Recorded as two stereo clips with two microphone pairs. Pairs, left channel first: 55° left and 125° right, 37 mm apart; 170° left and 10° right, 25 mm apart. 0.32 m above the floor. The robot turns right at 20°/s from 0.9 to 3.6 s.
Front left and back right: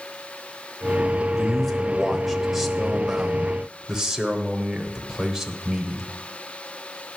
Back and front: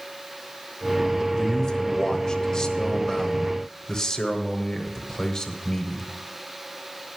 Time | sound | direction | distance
1.4 | a man speaking | 125° left | 0.9 m